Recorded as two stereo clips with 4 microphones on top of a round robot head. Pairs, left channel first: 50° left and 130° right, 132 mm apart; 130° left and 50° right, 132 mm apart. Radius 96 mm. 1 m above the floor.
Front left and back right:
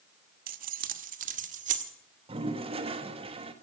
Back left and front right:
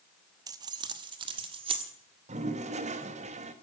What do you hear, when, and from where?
0.5 s keys jangling: 115° right, 0.8 m; by 1.9 s 100° right, 1.7 m
2.3 s a toilet flushing: 85° right, 1.5 m